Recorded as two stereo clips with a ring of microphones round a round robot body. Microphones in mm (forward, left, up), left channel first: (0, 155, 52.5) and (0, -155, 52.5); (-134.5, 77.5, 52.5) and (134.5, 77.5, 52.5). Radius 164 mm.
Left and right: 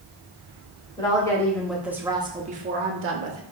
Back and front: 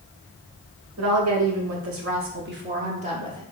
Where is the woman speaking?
15° left, 1.3 m; by 3.4 s 75° right, 0.9 m.